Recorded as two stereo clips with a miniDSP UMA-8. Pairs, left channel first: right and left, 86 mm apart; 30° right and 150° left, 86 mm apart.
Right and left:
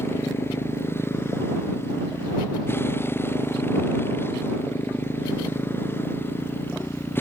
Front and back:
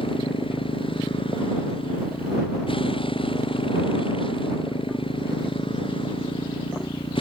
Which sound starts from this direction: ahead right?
A motorcycle, at 0.0 s.